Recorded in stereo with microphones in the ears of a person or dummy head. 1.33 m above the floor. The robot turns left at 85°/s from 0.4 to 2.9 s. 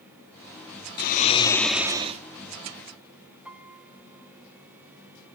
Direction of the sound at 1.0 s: 65° left.